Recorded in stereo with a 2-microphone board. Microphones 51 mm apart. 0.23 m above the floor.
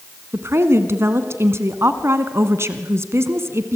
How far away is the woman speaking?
About 1.9 m.